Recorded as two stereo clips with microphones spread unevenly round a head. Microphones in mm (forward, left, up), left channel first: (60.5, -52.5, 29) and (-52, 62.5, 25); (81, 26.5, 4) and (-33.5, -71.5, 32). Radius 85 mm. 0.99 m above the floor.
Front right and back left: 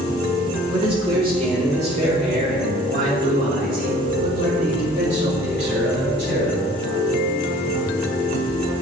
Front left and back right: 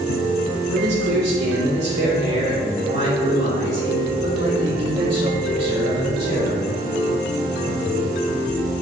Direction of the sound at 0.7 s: 165° right.